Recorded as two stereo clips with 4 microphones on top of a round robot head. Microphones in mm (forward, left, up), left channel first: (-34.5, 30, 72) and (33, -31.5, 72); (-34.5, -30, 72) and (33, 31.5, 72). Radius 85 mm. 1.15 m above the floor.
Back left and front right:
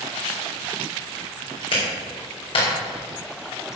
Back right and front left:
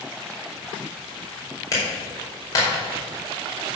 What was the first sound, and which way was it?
A clap, 170° left.